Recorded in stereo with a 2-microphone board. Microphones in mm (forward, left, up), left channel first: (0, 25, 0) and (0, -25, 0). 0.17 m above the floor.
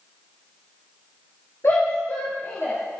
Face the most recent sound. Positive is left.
turn(degrees=60)  # may be behind; listen again after turning